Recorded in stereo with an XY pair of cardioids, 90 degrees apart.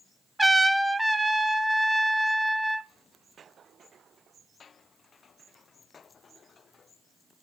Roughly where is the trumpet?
Ahead.